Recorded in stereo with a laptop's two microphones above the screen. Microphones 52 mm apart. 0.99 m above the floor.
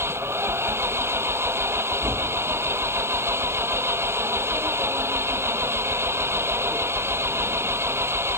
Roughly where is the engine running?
Right.